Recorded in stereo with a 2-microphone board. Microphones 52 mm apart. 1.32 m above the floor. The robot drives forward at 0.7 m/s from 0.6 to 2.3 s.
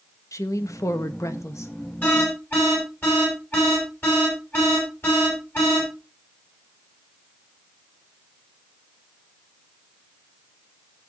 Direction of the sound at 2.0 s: 40° left (ahead or behind).